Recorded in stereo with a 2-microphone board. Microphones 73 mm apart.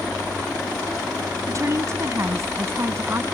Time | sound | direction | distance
1.5 | a woman speaking | 45° right (ahead or behind) | ?